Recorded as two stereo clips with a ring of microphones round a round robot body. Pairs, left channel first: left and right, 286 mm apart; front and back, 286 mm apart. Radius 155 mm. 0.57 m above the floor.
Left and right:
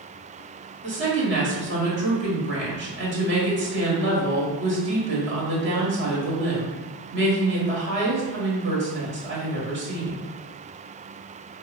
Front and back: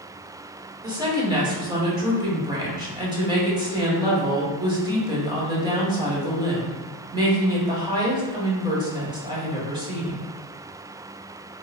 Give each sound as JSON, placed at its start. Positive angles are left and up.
{"t": 0.8, "sound": "a woman speaking", "azimuth_deg": -115, "distance_m": 1.4}